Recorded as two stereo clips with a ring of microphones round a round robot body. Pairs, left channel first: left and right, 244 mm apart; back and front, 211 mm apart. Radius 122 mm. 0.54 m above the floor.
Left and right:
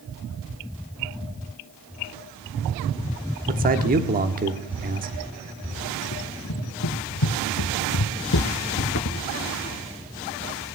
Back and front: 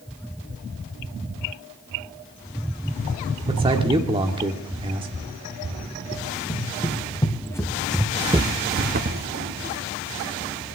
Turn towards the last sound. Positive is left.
turn(degrees=40)